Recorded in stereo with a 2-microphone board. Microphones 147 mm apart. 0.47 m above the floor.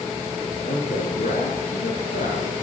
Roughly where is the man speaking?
Left.